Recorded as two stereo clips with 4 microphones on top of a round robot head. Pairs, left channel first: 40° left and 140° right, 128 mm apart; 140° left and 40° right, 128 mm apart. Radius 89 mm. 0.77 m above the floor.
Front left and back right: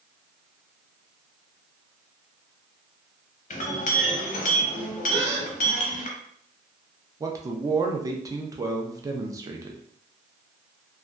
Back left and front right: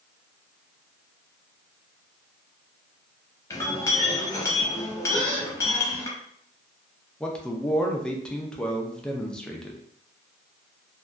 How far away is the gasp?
About 0.7 m.